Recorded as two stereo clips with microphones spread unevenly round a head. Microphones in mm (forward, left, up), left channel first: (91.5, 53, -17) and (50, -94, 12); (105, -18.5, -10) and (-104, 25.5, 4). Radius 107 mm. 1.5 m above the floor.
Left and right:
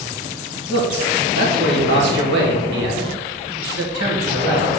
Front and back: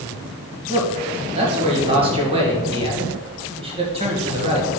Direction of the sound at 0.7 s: 125° right.